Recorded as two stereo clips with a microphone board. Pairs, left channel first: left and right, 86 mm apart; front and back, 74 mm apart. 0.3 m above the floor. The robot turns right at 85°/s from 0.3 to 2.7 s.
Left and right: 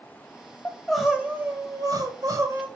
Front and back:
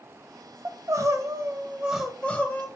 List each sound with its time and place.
0.7 s crying: 150° left, 1.7 m; by 2.7 s 35° right, 1.7 m